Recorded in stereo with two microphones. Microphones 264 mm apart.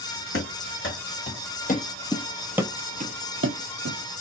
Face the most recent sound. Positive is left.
turn(degrees=-65)  # may be behind; listen again after turning